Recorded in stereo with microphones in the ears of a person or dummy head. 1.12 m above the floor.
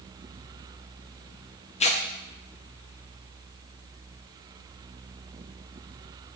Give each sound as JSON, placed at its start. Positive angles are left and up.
{"t": 1.8, "sound": "tearing paper", "side_deg": 30, "distance_m": 0.7}